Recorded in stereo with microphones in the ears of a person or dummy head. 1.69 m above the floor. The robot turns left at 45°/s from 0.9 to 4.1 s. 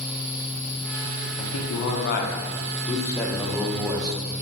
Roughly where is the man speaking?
Left.